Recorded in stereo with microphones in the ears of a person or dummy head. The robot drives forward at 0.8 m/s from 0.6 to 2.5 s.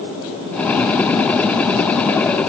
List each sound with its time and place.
Only background noise.